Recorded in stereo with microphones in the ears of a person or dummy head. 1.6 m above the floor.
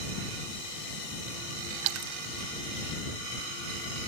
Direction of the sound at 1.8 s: 80° right.